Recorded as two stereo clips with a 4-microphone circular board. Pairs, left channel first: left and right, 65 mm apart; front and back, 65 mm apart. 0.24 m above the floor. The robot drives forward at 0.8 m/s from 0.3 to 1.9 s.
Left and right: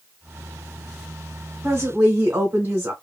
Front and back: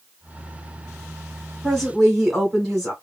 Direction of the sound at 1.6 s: 90° right.